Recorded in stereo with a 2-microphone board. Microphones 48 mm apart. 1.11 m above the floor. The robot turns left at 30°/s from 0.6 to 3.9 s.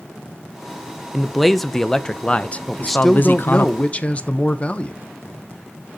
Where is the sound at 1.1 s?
175° right, 0.6 m; by 3.7 s 110° left, 0.6 m.